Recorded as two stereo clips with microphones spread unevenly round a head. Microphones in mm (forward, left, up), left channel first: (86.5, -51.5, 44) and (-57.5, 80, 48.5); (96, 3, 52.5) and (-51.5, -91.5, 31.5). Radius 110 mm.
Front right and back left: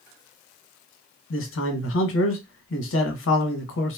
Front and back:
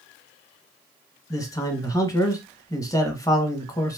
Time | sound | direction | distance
1.3 | a man speaking | 40° right | 0.8 m